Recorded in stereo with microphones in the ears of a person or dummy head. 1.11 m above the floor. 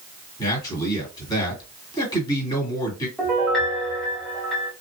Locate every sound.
0.4 s a man speaking: 20° left (ahead or behind), 1.9 m
3.2 s a piano: 5° left (ahead or behind), 1.0 m